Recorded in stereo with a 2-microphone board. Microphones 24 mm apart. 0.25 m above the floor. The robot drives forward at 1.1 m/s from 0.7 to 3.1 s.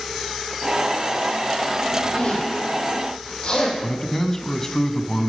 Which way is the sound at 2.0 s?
55° left (ahead or behind).